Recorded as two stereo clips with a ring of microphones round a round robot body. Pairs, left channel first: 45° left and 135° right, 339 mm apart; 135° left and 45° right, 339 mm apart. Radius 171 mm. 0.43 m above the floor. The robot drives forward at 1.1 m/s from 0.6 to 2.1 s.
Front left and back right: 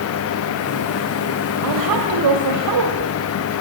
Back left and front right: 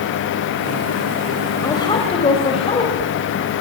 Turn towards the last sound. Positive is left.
turn(degrees=-150)